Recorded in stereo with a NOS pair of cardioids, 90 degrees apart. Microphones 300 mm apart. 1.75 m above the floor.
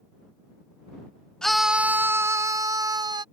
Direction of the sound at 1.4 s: Straight ahead.